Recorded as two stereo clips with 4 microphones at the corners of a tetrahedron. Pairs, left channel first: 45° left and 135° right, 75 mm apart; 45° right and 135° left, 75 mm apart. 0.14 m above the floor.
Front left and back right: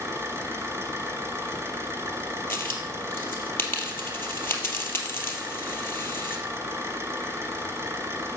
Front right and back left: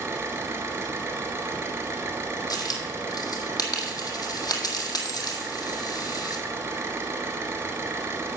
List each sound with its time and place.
0.0 s an engine running: straight behind, 1.8 m
2.5 s a dropped coin: 15° right, 1.9 m